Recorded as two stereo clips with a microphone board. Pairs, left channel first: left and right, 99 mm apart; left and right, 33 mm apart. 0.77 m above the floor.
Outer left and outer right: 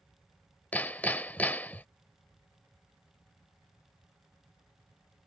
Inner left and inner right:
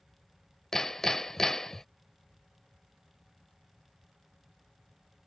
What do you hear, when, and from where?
0.7 s hammering: 15° left (ahead or behind)